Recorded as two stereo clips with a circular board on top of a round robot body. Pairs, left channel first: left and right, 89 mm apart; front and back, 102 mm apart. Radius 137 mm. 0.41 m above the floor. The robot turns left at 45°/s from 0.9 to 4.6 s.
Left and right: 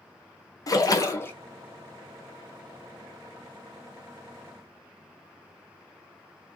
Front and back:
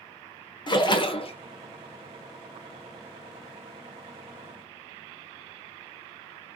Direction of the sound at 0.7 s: 40° left.